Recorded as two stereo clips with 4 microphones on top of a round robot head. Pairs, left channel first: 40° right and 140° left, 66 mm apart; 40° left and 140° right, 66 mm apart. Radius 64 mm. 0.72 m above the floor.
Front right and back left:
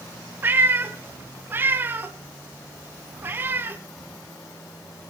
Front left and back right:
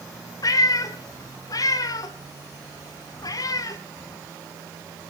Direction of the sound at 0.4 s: 80° left.